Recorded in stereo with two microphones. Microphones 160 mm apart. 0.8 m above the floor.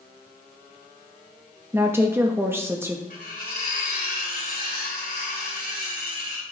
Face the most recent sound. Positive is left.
turn(degrees=70)  # may be behind; listen again after turning